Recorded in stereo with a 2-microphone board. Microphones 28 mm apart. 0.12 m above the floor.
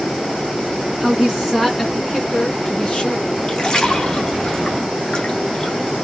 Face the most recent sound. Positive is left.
turn(degrees=30)  # may be behind; listen again after turning